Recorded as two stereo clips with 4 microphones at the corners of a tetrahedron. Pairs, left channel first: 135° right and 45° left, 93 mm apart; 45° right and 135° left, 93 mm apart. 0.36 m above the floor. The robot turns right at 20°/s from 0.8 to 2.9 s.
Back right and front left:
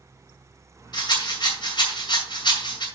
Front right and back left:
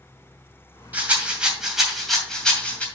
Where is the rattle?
155° right, 2.5 m; by 2.9 s 115° right, 2.5 m.